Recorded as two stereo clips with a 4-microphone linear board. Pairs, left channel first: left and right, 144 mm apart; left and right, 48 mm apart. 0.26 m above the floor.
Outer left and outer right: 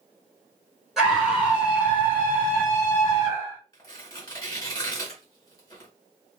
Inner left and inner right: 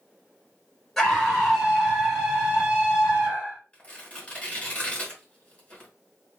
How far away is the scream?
About 1.5 m.